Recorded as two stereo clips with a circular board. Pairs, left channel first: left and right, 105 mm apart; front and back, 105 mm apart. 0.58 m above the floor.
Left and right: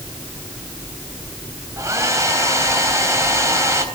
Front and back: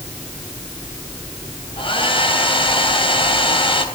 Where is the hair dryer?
30° right, 3.5 m.